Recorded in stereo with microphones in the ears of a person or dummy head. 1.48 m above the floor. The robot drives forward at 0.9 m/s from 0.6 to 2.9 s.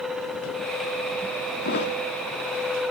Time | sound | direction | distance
1.6 | a thud | 60° left (ahead or behind) | 1.7 m